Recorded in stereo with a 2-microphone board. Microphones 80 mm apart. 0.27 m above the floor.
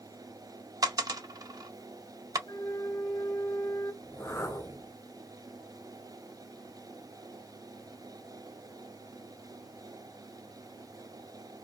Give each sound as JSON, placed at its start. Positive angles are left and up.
{"t": 0.8, "sound": "a dropped coin", "side_deg": -50, "distance_m": 0.6}
{"t": 2.5, "sound": "a flute", "side_deg": 60, "distance_m": 1.6}
{"t": 4.0, "sound": "a whoosh", "side_deg": 35, "distance_m": 1.9}